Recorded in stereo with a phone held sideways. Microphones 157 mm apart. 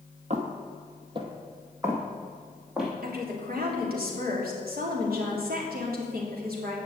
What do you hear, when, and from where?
0.3 s footsteps: 50° right (ahead or behind), 1.8 m; by 2.9 s 5° right (ahead or behind), 3 m
3.0 s a woman speaking: 75° right (ahead or behind), 3 m